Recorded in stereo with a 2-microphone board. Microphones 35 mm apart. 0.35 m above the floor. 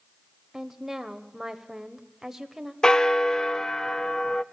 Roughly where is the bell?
Centre.